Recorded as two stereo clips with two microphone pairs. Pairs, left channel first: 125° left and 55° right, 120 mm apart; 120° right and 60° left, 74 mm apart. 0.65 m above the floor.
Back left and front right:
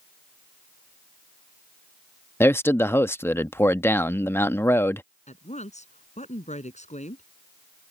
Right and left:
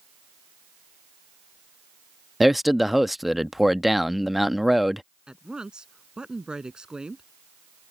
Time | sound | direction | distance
2.4 | a man speaking | 140° left | ?
5.3 | a woman speaking | 135° left | ?